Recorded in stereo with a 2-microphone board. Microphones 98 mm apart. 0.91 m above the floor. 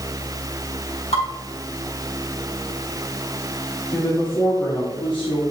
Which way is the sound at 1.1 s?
90° left.